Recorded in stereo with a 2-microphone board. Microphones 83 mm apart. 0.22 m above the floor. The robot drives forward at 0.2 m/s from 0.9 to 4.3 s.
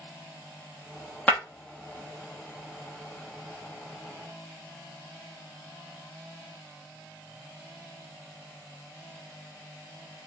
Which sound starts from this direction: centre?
Breaking glass, at 1.3 s.